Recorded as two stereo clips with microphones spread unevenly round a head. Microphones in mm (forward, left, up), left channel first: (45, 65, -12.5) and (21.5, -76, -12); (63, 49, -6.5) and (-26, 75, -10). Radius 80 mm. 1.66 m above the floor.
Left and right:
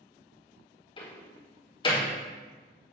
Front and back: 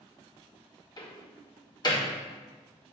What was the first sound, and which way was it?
A door slam, 25° left.